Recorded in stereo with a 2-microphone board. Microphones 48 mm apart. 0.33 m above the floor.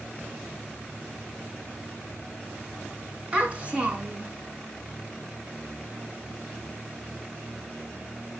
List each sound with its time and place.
3.3 s a child speaking: 25° right (ahead or behind), 3 m